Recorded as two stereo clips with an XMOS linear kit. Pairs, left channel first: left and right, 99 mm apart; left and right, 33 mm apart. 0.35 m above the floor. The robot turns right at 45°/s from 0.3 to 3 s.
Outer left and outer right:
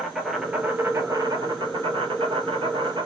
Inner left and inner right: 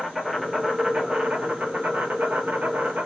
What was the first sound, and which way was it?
An insect, straight behind.